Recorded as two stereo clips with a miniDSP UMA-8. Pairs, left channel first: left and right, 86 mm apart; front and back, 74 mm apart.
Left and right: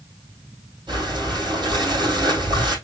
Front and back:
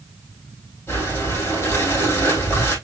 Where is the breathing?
55° right, 3 m.